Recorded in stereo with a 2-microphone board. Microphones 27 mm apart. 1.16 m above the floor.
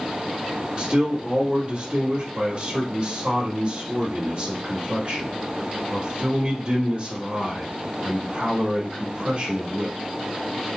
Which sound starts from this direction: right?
A man speaking, at 0.8 s.